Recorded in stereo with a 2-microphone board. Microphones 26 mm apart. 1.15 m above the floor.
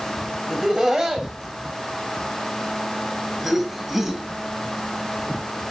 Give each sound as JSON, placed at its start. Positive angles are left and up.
{"t": 0.5, "sound": "laughter", "side_deg": -35, "distance_m": 7.0}